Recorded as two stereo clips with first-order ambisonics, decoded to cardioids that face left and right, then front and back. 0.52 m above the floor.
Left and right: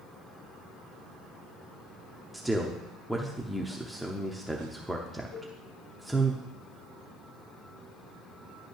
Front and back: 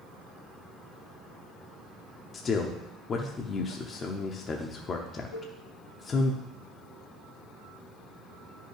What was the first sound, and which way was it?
A man speaking, straight ahead.